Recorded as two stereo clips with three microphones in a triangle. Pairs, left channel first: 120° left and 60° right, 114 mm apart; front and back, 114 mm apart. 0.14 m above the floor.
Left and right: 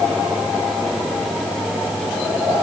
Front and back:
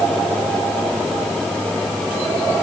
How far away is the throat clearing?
No throat clearing in this recording.